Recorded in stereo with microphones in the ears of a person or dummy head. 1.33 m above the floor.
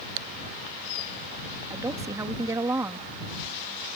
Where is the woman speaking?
20° right (ahead or behind).